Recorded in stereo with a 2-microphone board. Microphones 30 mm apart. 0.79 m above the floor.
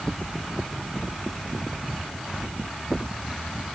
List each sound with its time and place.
Only background noise.